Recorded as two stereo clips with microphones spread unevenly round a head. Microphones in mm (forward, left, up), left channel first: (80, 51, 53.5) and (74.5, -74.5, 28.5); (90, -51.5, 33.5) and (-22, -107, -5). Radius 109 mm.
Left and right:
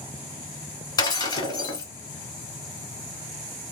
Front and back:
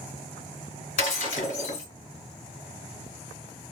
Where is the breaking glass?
35° left, 2 m.